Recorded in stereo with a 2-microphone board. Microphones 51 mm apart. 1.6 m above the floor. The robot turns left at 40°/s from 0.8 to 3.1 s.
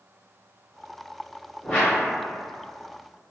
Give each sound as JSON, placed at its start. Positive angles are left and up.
{"t": 1.6, "sound": "a whoosh", "side_deg": 15, "distance_m": 1.3}